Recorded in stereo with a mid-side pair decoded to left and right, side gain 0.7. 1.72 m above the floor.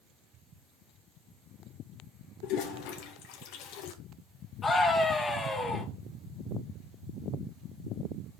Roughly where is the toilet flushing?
Left.